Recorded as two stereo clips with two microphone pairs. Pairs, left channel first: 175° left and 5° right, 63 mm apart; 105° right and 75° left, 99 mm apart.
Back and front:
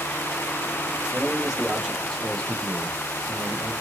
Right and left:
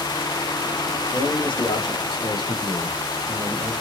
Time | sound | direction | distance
1.1 | a man speaking | 80° right | 1.7 m